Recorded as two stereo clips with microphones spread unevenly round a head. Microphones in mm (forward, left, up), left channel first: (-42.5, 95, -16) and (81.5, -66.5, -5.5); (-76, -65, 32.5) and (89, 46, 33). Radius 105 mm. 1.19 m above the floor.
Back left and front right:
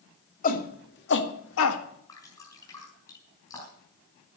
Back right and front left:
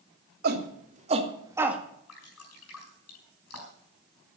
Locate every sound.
0.4 s a shout: 80° left, 2.5 m; by 1.8 s 120° left, 1.7 m
2.1 s dripping: 160° right, 5.5 m